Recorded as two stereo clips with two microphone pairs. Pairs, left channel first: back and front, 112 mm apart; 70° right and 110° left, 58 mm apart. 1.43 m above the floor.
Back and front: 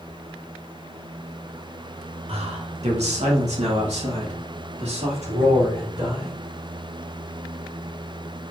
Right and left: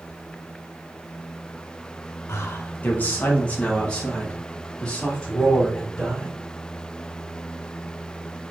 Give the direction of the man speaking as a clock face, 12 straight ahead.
1 o'clock.